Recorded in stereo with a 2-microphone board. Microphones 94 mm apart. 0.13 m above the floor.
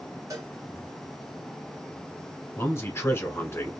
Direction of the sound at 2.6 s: 30° left (ahead or behind).